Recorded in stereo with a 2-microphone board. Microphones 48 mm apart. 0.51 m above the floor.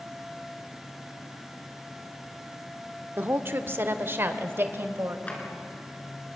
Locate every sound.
3.2 s a woman speaking: 45° right (ahead or behind), 1.0 m; by 5.2 s 50° right (ahead or behind), 2 m
5.3 s a drawer: 30° left (ahead or behind), 4 m